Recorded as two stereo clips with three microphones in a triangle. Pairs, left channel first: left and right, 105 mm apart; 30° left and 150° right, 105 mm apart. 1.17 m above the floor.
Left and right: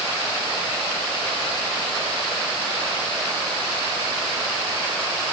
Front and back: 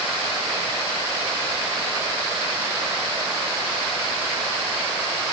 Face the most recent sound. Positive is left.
No sound to turn to.